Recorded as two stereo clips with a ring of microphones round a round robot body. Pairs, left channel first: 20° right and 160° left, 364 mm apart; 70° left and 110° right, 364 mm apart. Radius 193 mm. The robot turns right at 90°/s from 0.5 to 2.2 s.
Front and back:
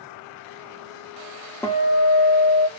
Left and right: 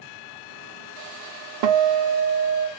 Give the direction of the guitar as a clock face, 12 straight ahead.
4 o'clock.